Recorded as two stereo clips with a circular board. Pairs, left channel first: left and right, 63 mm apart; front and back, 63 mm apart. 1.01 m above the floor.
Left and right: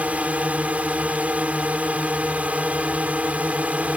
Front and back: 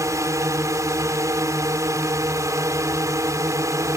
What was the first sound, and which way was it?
A drone, 155° right.